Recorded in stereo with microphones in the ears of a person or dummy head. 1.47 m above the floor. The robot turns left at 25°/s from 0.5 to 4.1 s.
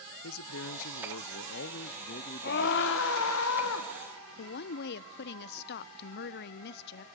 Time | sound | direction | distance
0.2 | a man speaking | 95° left | 0.6 m
2.4 | a scream | 125° left | 1.5 m
4.4 | a woman speaking | 55° left (ahead or behind) | 0.5 m